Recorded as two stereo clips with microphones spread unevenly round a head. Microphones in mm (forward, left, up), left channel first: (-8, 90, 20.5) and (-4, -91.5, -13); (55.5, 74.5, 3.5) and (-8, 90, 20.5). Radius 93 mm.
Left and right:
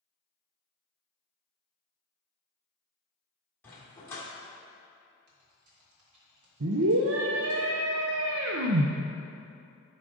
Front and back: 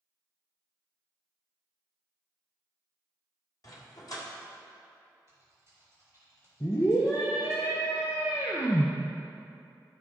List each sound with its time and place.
3.6 s a dog barking: 20° left, 1.7 m
5.3 s typing on a keyboard: 90° right, 2 m
6.6 s a scream: 75° right, 0.5 m